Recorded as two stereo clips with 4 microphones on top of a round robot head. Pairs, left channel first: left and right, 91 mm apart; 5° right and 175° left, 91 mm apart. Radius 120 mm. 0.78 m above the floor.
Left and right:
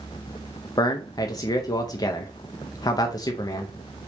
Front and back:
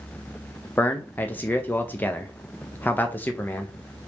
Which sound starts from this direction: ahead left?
A man speaking, at 0.8 s.